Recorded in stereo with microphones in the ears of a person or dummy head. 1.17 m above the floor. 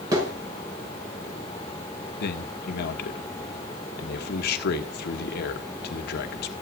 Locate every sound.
0.1 s a thud: 25° right (ahead or behind), 6 m
2.2 s a man speaking: 60° left (ahead or behind), 1.3 m